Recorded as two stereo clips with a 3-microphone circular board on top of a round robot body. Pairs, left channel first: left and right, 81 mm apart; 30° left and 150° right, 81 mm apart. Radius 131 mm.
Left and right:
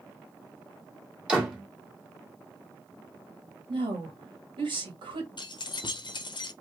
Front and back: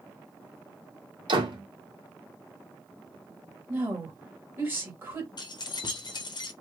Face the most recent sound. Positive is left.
turn(degrees=65)